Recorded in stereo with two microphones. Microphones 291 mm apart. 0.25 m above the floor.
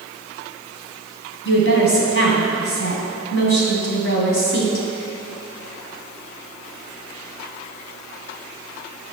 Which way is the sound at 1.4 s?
45° left (ahead or behind).